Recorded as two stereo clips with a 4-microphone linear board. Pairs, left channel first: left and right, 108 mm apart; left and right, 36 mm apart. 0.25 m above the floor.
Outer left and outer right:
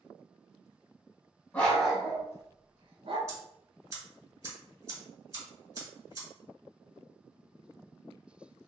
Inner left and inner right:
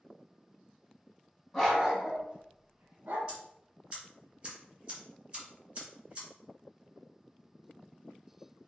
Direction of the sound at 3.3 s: 25° right (ahead or behind).